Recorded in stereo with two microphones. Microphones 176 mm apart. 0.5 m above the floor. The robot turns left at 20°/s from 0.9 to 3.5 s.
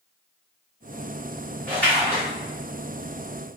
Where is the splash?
10° left (ahead or behind), 1.3 m; by 2.2 s 15° left (ahead or behind), 1.3 m.